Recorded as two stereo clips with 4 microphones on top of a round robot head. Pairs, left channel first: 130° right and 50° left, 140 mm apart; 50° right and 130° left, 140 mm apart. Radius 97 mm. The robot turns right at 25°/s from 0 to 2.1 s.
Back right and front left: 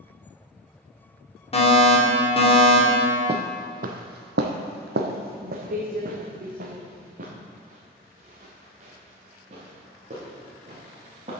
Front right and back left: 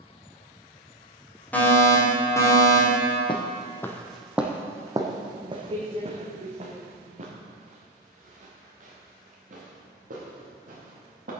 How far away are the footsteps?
About 1.0 m.